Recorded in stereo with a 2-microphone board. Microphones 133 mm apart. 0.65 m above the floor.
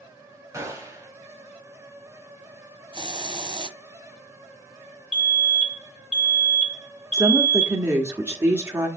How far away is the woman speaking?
About 1.4 m.